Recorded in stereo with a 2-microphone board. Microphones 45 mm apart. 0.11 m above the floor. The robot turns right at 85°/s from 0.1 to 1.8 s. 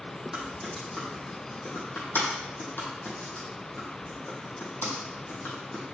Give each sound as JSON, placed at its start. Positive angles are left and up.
{"t": 0.3, "sound": "typing on a keyboard", "side_deg": -25, "distance_m": 2.5}